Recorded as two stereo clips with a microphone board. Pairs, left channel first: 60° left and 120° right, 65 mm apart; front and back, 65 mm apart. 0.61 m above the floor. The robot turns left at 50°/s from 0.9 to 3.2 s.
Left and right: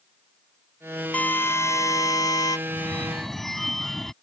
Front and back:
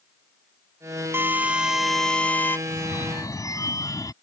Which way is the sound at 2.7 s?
Straight ahead.